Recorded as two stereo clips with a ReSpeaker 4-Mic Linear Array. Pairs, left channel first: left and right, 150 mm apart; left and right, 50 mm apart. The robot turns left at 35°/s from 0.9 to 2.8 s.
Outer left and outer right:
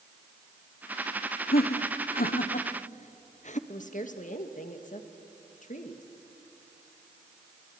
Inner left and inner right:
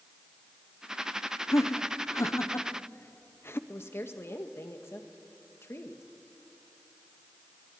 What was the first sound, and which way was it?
Laughter, 80° left.